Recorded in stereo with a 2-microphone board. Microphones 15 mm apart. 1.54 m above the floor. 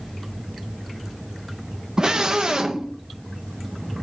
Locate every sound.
2.0 s a scream: 50° right (ahead or behind), 2 m